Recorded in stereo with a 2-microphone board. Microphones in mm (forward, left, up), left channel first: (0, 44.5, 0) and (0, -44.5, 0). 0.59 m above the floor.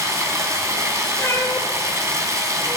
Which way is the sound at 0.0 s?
35° right (ahead or behind).